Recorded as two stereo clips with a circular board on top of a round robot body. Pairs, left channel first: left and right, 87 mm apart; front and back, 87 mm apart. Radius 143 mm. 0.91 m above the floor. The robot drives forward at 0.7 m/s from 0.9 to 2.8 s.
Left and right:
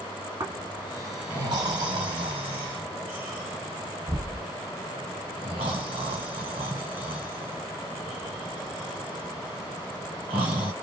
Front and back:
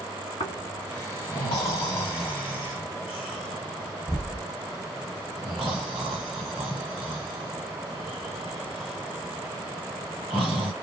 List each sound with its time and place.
0.4 s snoring: 30° right, 1.6 m; by 10.7 s 95° right, 1.0 m